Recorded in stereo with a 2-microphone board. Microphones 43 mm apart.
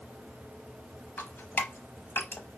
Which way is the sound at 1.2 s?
55° left (ahead or behind).